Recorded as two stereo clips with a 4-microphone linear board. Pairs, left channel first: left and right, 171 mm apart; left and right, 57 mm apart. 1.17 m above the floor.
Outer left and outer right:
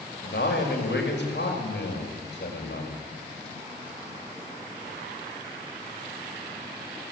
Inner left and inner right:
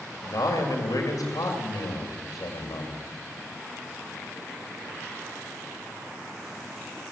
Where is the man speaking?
80° left, 5.5 m.